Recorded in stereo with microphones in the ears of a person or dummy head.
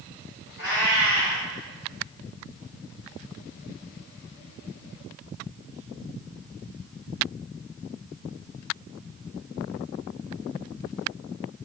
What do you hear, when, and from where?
0.6 s a cat meowing: 15° right (ahead or behind), 1.9 m